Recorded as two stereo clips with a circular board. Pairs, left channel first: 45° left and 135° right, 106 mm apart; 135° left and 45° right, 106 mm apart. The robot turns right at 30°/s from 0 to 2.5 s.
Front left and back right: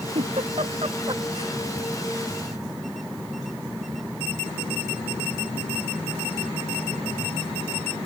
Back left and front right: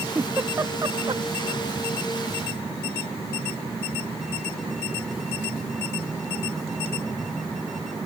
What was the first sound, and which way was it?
A giggle, 120° right.